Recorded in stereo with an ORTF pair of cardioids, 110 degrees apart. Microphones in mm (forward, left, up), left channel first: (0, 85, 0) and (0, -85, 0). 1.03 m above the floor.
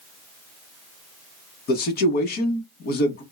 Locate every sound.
1.7 s a man speaking: 65° left, 1.2 m